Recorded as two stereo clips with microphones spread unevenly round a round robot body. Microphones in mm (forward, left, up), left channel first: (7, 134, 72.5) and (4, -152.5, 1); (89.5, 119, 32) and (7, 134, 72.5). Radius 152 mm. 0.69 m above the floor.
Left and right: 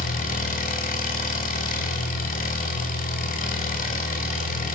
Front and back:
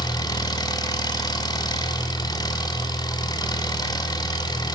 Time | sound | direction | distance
0.0 | an engine running | 25° left | 6 m